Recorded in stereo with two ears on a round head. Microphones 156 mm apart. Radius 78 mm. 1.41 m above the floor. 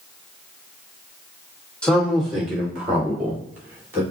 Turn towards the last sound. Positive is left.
turn(degrees=-15)  # may be behind; listen again after turning